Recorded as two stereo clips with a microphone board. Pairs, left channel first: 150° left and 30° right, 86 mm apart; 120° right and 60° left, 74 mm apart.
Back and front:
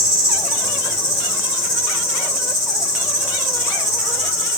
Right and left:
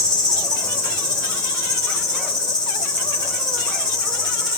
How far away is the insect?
About 4.5 m.